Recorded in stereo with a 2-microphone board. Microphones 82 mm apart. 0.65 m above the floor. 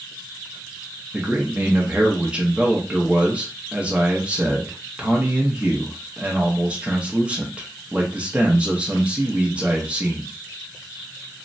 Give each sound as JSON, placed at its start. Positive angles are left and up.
{"t": 1.1, "sound": "a man speaking", "side_deg": -15, "distance_m": 0.6}